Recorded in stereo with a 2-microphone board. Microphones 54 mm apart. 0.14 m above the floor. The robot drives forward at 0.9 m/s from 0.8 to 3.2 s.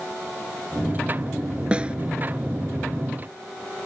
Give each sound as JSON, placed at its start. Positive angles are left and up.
{"t": 1.7, "sound": "a snare drum", "side_deg": -20}